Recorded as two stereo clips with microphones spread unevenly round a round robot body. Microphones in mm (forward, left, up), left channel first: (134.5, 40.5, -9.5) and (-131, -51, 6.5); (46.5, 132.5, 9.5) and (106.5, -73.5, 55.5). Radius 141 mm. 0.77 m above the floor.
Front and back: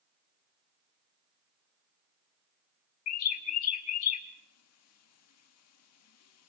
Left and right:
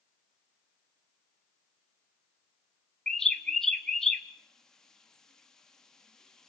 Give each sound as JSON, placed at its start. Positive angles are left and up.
{"t": 3.1, "sound": "a bird", "azimuth_deg": 25, "distance_m": 1.4}